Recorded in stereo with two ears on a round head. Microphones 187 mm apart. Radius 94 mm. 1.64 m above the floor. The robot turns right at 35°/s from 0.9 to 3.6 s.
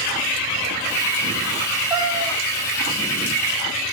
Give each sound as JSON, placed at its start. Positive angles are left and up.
{"t": 1.9, "sound": "a cat meowing", "side_deg": -20, "distance_m": 4.5}